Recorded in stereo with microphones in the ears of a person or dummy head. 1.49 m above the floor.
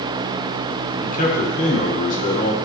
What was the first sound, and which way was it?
A man speaking, 45° left (ahead or behind).